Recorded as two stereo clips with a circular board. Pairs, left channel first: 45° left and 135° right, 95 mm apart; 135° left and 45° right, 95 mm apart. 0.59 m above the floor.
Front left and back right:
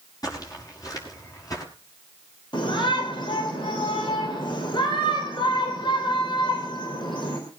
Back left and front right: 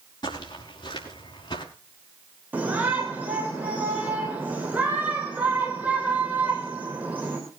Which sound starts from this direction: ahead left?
A shout, at 2.5 s.